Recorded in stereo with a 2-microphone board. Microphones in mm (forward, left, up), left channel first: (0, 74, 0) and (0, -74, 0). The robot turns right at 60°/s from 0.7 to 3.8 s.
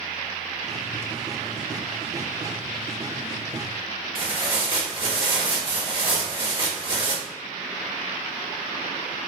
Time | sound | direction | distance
4.2 | tearing paper | 35° right (ahead or behind) | 1.2 m